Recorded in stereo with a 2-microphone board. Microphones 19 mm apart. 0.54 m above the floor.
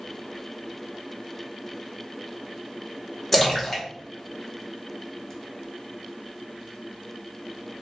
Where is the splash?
15° left (ahead or behind), 0.8 m.